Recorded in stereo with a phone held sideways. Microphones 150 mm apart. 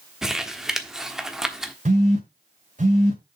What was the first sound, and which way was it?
Crumpling, 5° right (ahead or behind).